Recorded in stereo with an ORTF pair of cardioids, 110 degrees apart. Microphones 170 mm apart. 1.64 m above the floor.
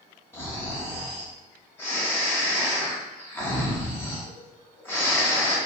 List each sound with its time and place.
0.3 s snoring: 15° left, 1.2 m